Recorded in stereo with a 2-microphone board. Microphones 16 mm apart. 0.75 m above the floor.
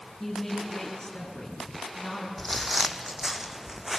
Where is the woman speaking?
15° left (ahead or behind), 8 m; by 2.3 s 5° left (ahead or behind), 6 m.